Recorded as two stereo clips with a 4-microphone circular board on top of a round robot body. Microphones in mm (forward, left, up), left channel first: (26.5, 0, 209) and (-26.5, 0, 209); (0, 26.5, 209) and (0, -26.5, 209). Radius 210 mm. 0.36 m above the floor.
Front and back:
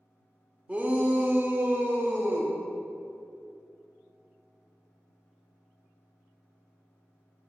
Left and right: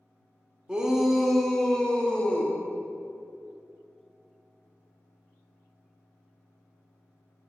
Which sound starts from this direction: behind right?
A shout, at 0.7 s.